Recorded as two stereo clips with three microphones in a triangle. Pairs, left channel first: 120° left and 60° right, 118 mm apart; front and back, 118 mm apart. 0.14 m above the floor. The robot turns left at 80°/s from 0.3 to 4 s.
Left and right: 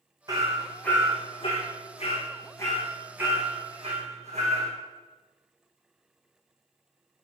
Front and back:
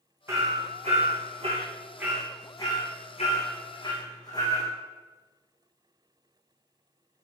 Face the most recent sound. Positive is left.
turn(degrees=-50)